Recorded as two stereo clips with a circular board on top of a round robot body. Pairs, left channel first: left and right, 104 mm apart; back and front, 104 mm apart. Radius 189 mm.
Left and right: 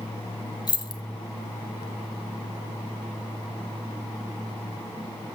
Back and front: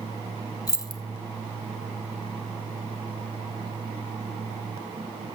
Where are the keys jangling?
130° left, 0.8 m.